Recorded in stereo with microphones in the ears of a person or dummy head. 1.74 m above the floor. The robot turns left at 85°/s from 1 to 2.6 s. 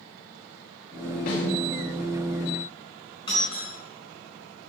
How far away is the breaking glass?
About 4 m.